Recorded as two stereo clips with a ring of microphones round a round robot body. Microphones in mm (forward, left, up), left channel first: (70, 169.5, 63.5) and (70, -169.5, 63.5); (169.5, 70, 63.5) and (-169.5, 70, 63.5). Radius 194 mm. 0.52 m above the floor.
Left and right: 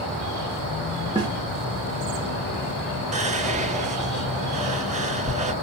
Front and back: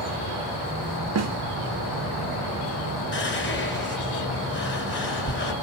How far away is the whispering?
About 1.1 m.